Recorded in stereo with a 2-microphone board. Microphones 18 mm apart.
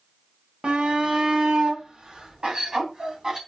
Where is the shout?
60° right (ahead or behind), 2 m; by 3.4 s 35° right (ahead or behind), 3 m.